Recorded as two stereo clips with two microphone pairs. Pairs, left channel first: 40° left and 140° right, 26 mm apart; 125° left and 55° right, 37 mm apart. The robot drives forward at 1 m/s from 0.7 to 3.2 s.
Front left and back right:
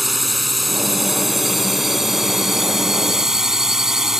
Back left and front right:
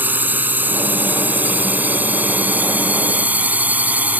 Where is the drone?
50° right; by 4.2 s 70° right.